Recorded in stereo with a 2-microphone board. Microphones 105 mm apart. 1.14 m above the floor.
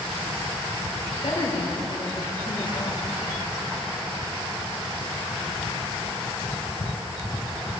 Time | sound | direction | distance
1.2 | a woman speaking | 75° left (ahead or behind) | 4 m